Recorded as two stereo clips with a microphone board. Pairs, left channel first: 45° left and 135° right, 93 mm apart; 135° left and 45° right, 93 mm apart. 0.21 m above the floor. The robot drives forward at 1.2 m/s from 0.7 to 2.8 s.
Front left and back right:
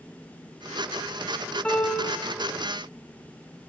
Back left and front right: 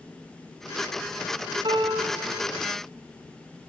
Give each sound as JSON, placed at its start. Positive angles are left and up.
{"t": 1.6, "sound": "a piano", "azimuth_deg": -30, "distance_m": 2.5}